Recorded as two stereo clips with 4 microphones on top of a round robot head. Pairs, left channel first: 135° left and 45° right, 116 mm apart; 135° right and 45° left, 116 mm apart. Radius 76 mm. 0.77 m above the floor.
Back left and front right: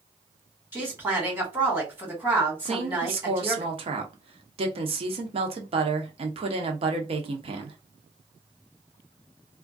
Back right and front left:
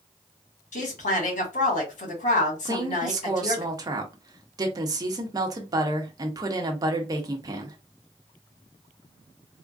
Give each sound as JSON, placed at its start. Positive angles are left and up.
{"t": 0.7, "sound": "a woman speaking", "azimuth_deg": -120, "distance_m": 2.0}
{"t": 2.6, "sound": "a woman speaking", "azimuth_deg": -10, "distance_m": 0.9}